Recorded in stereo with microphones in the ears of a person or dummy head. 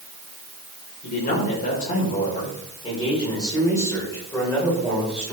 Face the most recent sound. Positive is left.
turn(degrees=0)  # may be behind; listen again after turning